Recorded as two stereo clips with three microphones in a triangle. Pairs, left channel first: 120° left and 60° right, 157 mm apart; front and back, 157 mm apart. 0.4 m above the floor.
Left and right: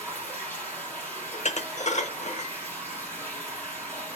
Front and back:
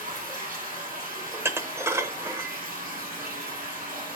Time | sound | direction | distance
0.0 | running water | 160° right | 3 m
1.3 | dishes clattering | 115° left | 0.8 m